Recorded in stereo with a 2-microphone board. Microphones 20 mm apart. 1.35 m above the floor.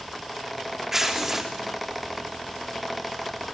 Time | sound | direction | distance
0.9 | tearing paper | 20° right (ahead or behind) | 3 m